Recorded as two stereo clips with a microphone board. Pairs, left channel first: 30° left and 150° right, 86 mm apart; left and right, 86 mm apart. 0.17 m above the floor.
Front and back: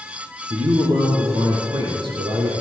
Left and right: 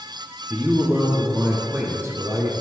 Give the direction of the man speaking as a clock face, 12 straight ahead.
5 o'clock.